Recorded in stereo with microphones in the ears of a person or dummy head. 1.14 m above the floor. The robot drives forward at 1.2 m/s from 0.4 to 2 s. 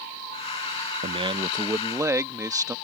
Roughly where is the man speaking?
Right.